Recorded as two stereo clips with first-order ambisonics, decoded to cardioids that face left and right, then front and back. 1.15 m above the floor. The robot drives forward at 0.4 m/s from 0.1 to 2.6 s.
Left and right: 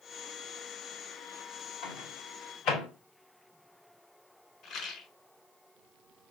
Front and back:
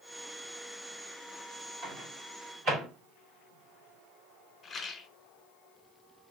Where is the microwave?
135° left, 2.5 m; by 2.9 s 140° left, 3 m.